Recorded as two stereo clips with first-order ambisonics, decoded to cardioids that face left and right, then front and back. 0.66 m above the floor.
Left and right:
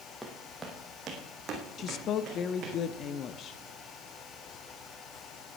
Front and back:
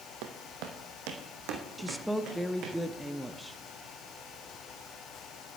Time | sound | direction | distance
0.2 | footsteps | straight behind | 1.7 m
1.8 | a woman speaking | 95° left | 0.6 m